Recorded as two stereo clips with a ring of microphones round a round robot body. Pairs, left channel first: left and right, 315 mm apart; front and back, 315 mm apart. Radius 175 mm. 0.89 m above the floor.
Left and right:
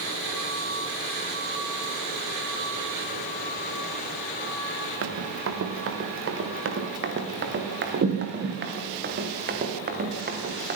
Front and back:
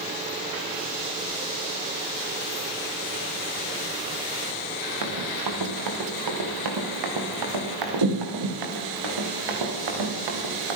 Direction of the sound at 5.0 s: 135° right.